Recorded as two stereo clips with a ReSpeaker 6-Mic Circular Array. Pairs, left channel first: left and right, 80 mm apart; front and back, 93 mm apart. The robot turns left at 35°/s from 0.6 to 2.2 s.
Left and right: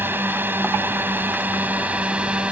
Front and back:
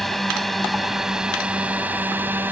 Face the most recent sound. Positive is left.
turn(degrees=-140)